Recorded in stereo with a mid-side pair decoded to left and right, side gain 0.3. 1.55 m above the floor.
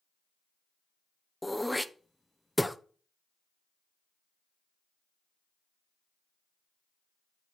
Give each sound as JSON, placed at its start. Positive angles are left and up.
{"t": 1.4, "sound": "throat clearing", "azimuth_deg": 5, "distance_m": 0.7}